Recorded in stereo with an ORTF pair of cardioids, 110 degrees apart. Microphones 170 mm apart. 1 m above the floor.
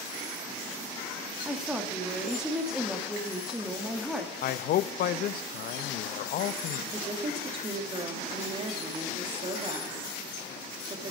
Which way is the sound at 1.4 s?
5° right.